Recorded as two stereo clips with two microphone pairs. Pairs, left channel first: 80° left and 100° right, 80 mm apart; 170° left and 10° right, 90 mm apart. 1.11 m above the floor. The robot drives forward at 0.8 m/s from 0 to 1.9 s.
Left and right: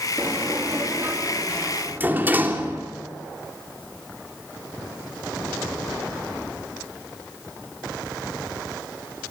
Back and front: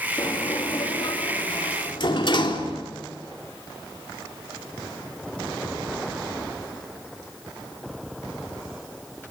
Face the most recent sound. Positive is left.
turn(degrees=-165)